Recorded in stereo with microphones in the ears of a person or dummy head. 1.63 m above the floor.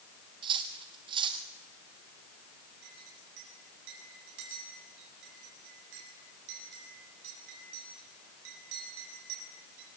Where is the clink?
65° right (ahead or behind), 8 m.